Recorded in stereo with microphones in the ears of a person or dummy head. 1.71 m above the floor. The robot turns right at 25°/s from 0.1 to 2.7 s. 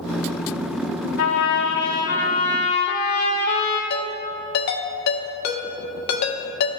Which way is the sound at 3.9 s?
55° left (ahead or behind).